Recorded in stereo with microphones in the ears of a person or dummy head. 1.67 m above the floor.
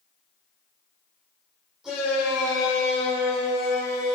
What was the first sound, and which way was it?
A shout, 5° right (ahead or behind).